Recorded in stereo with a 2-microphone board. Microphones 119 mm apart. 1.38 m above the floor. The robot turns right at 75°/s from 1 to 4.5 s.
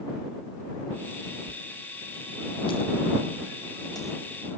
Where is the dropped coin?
40° right (ahead or behind); by 4.6 s 5° right (ahead or behind).